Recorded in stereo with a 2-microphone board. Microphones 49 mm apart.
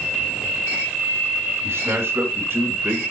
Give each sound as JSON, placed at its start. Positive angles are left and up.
{"t": 1.6, "sound": "a man speaking", "side_deg": -55, "distance_m": 2.5}